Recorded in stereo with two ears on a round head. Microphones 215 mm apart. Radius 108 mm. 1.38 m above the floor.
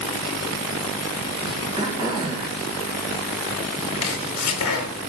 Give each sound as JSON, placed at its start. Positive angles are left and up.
{"t": 1.8, "sound": "throat clearing", "side_deg": -20, "distance_m": 1.5}
{"t": 4.0, "sound": "chopping", "side_deg": 70, "distance_m": 1.1}